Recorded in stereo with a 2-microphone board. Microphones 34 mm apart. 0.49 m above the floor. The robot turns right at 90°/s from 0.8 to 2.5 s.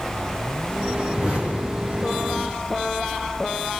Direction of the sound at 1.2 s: 10° right (ahead or behind).